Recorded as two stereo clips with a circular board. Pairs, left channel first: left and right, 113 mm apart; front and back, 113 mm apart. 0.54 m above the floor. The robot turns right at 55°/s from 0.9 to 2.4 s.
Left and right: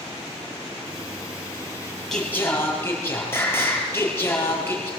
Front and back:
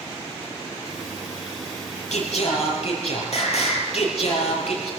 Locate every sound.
2.1 s singing: 5° left, 5 m; by 4.9 s 20° left, 5 m